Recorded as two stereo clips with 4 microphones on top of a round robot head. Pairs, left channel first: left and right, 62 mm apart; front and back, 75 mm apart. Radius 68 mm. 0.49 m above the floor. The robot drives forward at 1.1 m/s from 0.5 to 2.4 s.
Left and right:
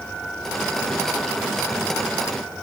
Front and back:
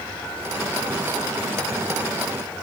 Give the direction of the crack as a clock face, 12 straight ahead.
I don't hear a crack.